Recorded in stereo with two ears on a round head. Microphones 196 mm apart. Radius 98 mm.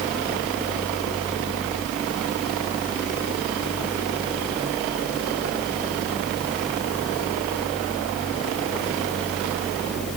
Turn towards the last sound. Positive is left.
No sound to turn to.